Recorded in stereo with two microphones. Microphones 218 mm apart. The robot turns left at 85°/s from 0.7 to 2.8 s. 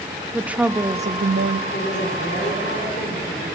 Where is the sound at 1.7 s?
145° left, 3.5 m; by 3.5 s 50° left, 3.5 m.